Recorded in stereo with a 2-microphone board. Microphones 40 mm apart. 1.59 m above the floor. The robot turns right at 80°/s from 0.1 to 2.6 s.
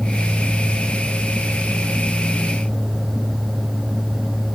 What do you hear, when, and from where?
Only background noise.